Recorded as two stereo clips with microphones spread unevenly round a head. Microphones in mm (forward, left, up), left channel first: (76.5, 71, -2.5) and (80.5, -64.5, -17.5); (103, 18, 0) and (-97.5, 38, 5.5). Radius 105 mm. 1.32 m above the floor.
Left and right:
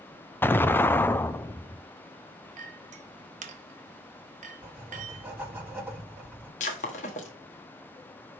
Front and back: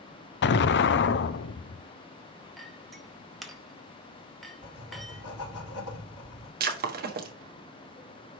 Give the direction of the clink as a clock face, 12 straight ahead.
3 o'clock.